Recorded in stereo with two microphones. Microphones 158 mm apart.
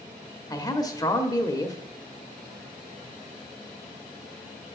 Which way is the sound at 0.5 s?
25° left (ahead or behind).